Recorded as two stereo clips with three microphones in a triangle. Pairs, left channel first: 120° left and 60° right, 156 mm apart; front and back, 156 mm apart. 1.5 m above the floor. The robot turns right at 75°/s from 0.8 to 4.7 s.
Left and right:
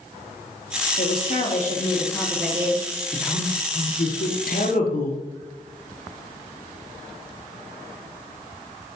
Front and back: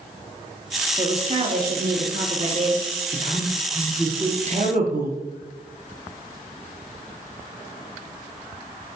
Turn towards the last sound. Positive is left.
turn(degrees=150)